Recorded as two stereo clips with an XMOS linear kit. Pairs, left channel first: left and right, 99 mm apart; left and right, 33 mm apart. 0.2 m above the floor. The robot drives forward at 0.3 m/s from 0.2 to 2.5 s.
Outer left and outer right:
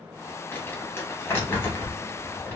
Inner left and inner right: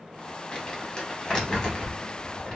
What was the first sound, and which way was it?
Crumpling, 25° left (ahead or behind).